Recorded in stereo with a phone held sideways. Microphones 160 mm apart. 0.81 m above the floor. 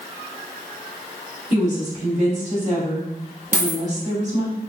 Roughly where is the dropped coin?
Right.